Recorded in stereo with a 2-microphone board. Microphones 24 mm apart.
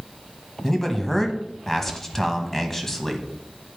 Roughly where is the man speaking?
Centre.